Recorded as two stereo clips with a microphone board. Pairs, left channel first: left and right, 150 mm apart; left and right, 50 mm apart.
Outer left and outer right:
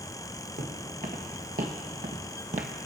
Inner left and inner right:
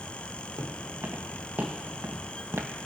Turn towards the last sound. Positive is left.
turn(degrees=-55)  # may be behind; listen again after turning